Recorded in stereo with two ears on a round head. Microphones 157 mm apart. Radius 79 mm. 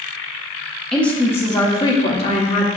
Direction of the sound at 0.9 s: 5° left (ahead or behind).